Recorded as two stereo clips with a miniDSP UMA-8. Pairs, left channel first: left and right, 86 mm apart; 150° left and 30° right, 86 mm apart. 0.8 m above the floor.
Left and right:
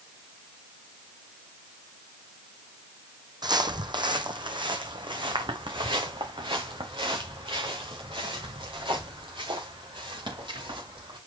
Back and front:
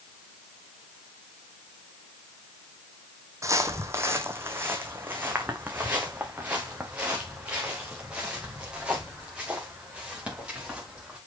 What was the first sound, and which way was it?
Footsteps, 75° right.